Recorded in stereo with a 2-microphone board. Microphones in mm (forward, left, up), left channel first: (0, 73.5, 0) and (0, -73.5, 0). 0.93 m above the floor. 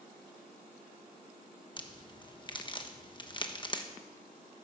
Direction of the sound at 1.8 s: 30° left (ahead or behind).